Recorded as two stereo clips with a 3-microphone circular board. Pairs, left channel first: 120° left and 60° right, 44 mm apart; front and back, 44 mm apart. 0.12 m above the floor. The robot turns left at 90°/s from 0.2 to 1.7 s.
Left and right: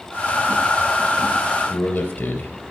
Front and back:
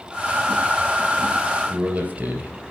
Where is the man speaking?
130° left, 2.5 m.